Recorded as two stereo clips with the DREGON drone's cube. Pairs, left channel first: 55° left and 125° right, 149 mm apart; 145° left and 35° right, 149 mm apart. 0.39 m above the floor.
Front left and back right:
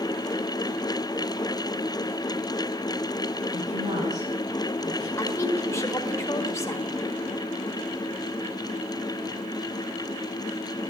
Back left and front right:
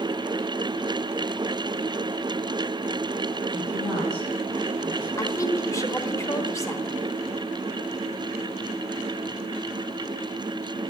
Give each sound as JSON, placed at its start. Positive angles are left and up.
{"t": 3.5, "sound": "a woman speaking", "azimuth_deg": -100, "distance_m": 3.5}
{"t": 5.2, "sound": "a woman speaking", "azimuth_deg": 100, "distance_m": 1.0}